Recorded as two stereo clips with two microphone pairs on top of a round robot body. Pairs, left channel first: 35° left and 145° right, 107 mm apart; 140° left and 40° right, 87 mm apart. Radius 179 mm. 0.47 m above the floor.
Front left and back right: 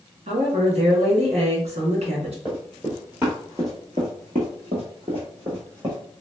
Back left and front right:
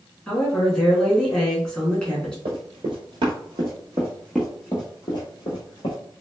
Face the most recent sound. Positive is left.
turn(degrees=170)